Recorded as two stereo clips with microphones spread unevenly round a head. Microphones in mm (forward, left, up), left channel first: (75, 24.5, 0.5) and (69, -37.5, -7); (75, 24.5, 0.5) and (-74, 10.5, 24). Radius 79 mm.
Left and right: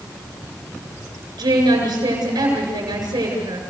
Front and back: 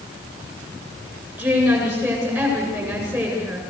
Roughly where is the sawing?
I don't hear sawing.